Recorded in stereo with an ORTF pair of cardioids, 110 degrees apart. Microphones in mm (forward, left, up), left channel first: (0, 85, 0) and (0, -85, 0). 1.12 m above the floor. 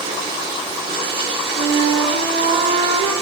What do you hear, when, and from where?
0.0 s running water: 65° right, 2.5 m
1.5 s a flute: 70° right, 3.5 m